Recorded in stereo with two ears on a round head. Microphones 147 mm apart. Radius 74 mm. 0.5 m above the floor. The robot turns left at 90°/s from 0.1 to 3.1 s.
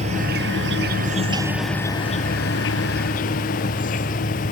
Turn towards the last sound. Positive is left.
turn(degrees=50)